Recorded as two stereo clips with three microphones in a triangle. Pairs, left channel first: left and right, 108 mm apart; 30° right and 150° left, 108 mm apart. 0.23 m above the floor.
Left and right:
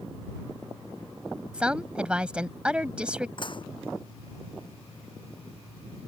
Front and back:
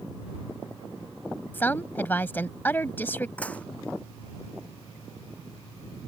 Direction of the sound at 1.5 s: 35° right.